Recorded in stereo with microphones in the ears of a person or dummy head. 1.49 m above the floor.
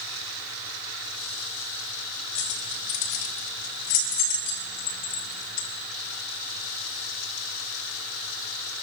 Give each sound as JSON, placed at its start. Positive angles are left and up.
{"t": 2.4, "sound": "keys jangling", "side_deg": 55, "distance_m": 4.5}